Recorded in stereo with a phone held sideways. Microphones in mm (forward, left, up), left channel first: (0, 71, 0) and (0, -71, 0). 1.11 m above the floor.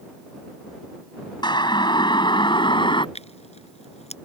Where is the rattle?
No rattle in this recording.